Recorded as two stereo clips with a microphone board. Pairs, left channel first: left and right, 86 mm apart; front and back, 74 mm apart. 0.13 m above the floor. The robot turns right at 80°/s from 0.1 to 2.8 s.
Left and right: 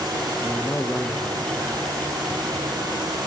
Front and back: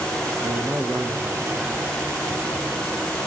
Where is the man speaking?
150° left, 2 m; by 2.1 s 80° right, 2 m.